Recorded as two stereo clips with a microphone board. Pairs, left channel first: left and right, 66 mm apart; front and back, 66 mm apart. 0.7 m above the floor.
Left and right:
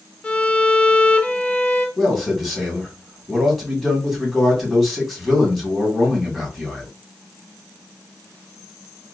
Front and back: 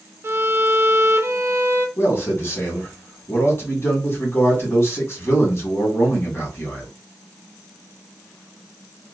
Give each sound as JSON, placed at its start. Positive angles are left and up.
{"t": 0.2, "sound": "a violin", "azimuth_deg": 150, "distance_m": 0.5}
{"t": 2.0, "sound": "a man speaking", "azimuth_deg": 5, "distance_m": 1.4}